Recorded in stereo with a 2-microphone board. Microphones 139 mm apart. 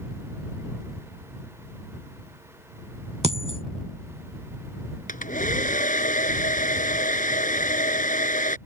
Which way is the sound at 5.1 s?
75° left (ahead or behind).